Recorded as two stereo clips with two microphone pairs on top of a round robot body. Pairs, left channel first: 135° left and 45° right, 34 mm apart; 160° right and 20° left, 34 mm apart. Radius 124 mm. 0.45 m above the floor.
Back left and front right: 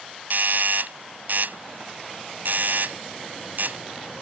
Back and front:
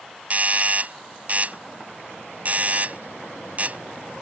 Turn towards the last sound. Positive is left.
turn(degrees=-20)